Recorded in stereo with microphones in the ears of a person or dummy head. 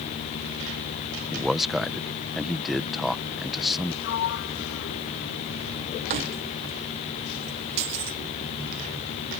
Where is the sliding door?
65° left (ahead or behind).